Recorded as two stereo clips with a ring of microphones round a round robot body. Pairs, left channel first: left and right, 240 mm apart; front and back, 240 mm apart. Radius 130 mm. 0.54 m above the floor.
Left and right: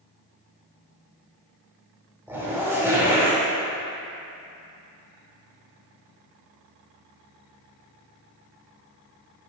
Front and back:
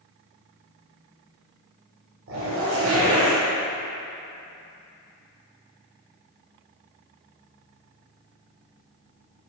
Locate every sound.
2.3 s a zipper: 170° right, 2.0 m